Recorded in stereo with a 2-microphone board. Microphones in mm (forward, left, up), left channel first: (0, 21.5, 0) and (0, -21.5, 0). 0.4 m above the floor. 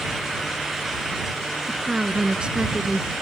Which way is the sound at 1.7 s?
25° right (ahead or behind).